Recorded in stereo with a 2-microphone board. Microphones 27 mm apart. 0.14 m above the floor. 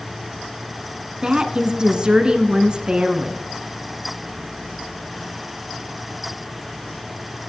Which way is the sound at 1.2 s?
30° right (ahead or behind).